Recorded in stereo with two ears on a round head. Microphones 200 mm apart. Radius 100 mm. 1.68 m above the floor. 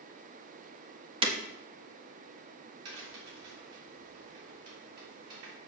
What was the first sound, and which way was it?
Breaking glass, 25° right (ahead or behind).